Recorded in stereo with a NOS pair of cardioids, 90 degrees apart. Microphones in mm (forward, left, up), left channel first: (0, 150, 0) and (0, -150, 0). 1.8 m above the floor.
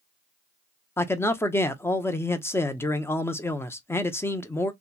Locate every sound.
1.0 s a man speaking: 10° left, 0.6 m